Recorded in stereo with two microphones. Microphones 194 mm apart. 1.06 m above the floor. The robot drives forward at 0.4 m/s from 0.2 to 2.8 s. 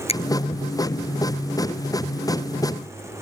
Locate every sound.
0.1 s a finger snap: 30° left (ahead or behind)